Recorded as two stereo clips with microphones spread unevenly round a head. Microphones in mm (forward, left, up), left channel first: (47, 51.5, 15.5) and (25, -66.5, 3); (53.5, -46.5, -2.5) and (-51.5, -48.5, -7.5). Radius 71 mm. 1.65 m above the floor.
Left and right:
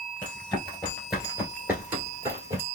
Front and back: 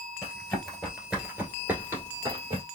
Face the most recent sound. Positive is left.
turn(degrees=-150)